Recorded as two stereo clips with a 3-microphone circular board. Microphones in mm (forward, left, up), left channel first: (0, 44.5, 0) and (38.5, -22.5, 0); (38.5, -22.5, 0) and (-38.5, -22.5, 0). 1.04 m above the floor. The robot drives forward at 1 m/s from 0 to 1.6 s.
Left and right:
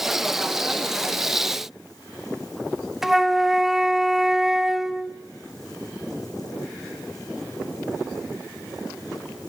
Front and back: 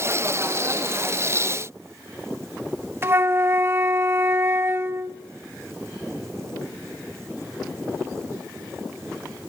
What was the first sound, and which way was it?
A flute, 145° right.